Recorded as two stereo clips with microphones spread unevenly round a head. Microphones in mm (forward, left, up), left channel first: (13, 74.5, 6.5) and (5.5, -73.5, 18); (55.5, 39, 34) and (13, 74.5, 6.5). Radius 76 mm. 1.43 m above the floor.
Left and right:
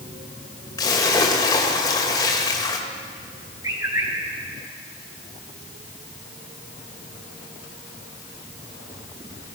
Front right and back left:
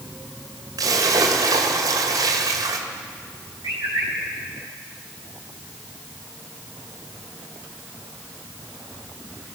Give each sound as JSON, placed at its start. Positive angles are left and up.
{"t": 0.8, "sound": "a splash", "azimuth_deg": 155, "distance_m": 2.0}
{"t": 3.6, "sound": "a bird", "azimuth_deg": -160, "distance_m": 4.5}